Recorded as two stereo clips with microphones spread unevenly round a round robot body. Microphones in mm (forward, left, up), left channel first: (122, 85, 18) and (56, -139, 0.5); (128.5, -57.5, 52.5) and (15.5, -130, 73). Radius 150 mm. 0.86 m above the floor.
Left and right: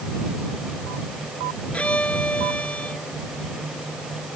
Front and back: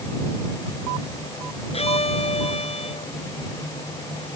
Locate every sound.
1.7 s a violin: 10° right